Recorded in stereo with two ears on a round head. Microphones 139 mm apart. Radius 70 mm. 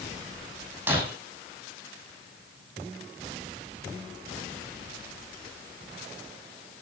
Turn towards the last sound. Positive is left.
turn(degrees=-10)  # may be behind; listen again after turning